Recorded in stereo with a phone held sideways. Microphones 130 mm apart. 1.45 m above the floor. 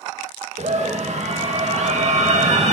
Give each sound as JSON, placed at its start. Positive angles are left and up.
{"t": 0.6, "sound": "a scream", "side_deg": -60, "distance_m": 1.9}